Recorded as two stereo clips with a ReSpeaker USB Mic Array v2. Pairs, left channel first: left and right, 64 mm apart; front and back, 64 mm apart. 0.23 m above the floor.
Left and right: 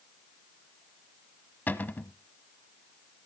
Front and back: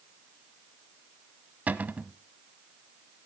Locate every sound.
1.7 s a cupboard door: 130° left, 0.9 m